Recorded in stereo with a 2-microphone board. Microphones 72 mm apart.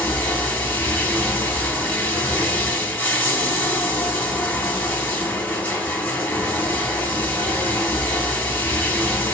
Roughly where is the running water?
Centre.